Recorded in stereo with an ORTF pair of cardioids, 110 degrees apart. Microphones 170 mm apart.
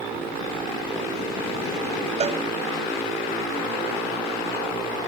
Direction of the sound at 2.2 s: 40° right.